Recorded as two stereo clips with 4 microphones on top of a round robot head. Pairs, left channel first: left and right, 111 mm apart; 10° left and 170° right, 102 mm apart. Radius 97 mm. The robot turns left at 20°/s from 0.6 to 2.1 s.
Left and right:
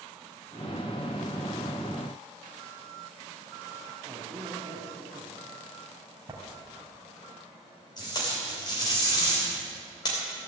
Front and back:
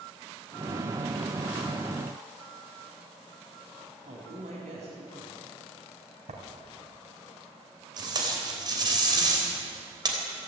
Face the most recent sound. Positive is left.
turn(degrees=145)